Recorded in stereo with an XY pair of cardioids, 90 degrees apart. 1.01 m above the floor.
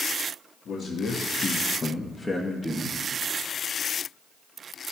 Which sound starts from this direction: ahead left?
A man speaking, at 0.7 s.